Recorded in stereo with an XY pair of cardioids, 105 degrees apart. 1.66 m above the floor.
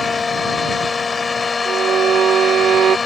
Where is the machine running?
30° left.